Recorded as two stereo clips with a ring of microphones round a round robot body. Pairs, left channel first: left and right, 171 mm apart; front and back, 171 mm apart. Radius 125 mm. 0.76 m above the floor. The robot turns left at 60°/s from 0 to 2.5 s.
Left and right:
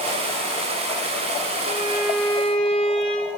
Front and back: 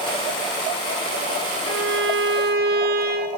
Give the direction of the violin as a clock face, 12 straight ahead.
5 o'clock.